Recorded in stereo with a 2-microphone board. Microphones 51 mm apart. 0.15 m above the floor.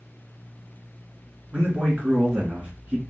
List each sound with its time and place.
1.5 s a man speaking: 30° right (ahead or behind), 1.8 m